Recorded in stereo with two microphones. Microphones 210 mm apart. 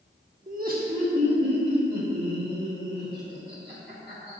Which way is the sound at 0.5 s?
40° right (ahead or behind).